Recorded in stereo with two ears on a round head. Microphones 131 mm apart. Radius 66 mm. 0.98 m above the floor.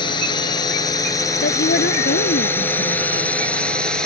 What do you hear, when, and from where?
0.0 s a drone: 30° left (ahead or behind); by 4.1 s 5° left (ahead or behind)
1.4 s a woman speaking: 80° left